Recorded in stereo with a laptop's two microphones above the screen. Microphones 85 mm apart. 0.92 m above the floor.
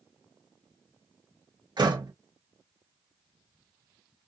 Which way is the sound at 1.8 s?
55° right (ahead or behind).